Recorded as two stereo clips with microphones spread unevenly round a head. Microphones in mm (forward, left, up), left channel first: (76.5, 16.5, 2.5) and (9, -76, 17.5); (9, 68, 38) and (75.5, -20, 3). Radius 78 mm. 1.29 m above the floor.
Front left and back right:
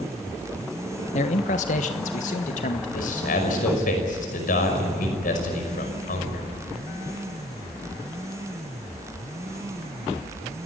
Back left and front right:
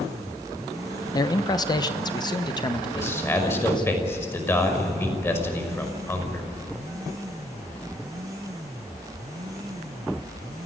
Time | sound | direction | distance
1.1 | a man speaking | 65° left | 1.0 m
2.9 | a man speaking | 60° left | 5.5 m